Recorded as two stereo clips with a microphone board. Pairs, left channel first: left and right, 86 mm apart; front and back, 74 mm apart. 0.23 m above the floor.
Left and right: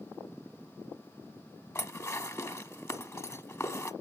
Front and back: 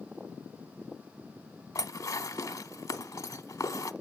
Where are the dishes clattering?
35° left, 1.1 m.